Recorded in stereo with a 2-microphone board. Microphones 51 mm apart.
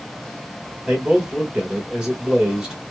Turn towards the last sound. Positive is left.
turn(degrees=-20)  # may be behind; listen again after turning